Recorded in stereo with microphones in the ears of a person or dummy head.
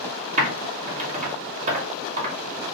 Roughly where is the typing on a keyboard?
Right.